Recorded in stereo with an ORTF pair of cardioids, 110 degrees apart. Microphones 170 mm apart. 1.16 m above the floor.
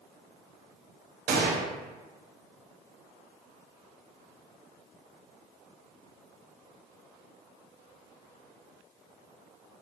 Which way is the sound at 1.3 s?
70° right.